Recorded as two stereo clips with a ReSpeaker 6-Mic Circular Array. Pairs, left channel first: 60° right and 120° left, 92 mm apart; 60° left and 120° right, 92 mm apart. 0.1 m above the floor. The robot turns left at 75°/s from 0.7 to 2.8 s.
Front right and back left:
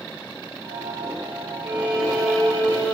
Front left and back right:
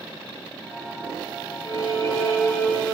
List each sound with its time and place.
1.6 s a violin: 70° left, 2 m; by 3.0 s 15° right, 2 m